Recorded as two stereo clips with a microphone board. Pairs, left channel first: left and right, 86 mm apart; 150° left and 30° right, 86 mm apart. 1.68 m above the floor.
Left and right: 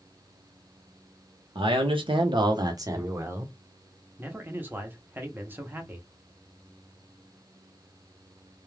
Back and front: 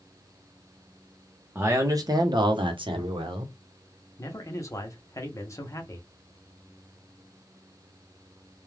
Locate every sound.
1.6 s a man speaking: 95° right, 0.8 m; by 3.5 s 25° right, 1.1 m
4.2 s a man speaking: 155° right, 0.8 m